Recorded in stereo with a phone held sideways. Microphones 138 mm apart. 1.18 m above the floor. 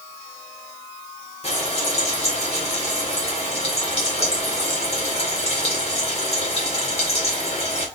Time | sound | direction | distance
1.4 | frying | 50° left (ahead or behind) | 2 m